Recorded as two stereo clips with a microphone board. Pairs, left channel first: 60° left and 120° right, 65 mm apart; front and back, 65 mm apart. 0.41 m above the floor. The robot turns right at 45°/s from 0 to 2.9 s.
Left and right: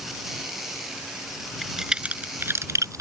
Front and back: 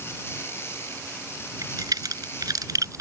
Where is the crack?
150° left; by 3.0 s 150° right.